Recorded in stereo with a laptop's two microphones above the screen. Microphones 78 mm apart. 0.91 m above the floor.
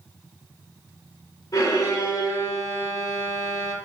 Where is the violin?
50° left (ahead or behind), 0.7 m.